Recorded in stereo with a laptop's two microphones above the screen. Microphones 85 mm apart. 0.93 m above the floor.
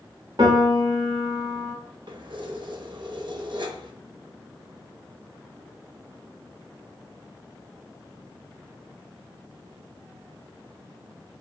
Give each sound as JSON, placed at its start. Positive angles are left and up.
{"t": 0.4, "sound": "a piano", "side_deg": -65, "distance_m": 0.9}
{"t": 2.1, "sound": "keys jangling", "side_deg": -70, "distance_m": 0.6}